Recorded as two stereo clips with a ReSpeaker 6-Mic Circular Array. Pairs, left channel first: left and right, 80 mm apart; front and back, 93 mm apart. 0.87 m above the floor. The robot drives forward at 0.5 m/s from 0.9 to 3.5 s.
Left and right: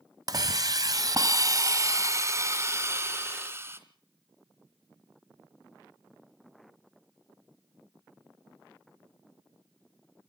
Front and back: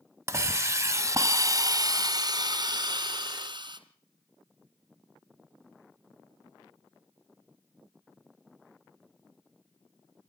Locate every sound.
0.3 s a hiss: 120° right, 1.6 m; by 3.8 s 150° right, 2.5 m